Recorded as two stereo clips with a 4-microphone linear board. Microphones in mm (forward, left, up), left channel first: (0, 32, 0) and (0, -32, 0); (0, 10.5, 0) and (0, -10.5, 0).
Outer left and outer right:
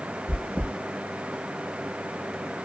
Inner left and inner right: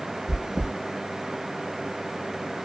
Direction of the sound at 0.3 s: 20° right (ahead or behind).